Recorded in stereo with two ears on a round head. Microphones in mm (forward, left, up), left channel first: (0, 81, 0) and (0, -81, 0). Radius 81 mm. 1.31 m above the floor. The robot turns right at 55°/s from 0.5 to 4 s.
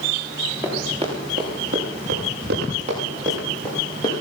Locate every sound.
0.6 s running footsteps: 10° right (ahead or behind), 7 m; by 4.1 s 25° left (ahead or behind), 8 m